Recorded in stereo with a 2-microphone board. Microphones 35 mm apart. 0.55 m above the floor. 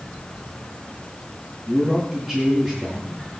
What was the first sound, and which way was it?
A man speaking, 5° right (ahead or behind).